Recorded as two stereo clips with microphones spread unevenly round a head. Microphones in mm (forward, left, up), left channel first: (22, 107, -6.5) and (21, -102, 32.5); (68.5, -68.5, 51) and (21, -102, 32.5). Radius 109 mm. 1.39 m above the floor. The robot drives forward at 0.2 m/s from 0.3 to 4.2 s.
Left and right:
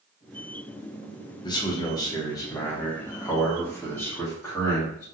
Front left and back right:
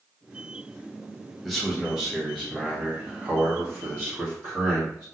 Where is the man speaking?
140° left, 0.6 m; by 5.0 s 165° left, 1.0 m.